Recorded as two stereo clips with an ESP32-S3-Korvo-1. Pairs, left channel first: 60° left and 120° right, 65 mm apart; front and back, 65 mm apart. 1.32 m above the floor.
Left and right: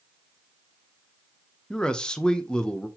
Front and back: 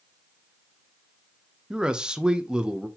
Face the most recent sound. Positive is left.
turn(degrees=120)